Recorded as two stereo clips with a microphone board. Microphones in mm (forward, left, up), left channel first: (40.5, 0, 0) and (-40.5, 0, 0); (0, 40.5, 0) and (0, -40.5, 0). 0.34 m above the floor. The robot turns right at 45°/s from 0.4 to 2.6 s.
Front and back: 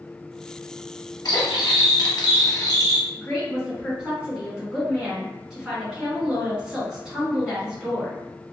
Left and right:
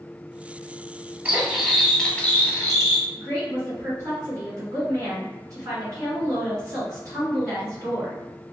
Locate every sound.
1.2 s cutlery clinking: 30° right, 0.8 m; by 3.1 s 35° left, 0.8 m
3.2 s a woman speaking: 90° right, 1.8 m